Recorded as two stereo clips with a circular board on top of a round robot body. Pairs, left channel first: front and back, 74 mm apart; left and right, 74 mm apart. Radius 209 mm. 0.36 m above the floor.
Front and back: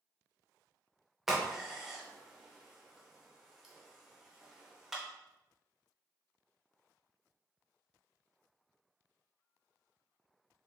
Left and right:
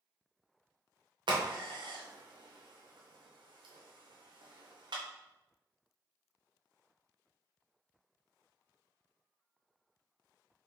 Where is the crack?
95° right, 0.8 m.